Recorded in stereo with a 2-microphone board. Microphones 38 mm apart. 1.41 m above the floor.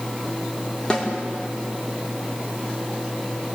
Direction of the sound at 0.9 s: 25° left (ahead or behind).